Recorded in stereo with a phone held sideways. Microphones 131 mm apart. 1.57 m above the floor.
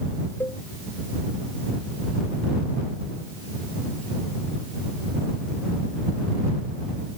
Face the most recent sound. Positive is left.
turn(degrees=20)  # may be behind; listen again after turning